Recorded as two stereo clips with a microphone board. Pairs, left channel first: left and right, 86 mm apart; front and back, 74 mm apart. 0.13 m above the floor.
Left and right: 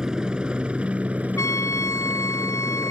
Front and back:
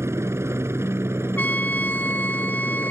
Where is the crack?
No crack in this recording.